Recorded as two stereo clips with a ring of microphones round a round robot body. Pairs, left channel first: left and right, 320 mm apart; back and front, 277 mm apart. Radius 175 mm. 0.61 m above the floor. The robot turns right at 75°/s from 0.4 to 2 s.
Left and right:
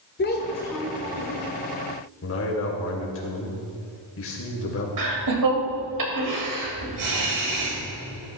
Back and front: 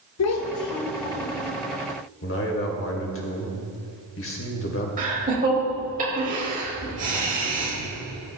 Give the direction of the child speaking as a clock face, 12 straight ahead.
7 o'clock.